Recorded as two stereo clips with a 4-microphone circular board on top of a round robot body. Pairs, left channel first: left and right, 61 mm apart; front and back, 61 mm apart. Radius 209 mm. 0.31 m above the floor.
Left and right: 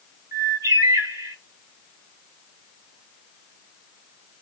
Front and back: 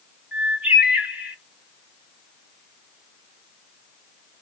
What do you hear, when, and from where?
0.3 s a bird: 110° right, 1.3 m